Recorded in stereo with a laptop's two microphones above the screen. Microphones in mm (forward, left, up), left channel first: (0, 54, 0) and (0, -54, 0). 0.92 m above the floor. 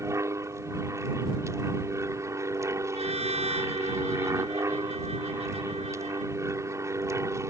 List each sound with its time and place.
0.0 s an aircraft: 25° right (ahead or behind)
2.9 s a trumpet: 80° right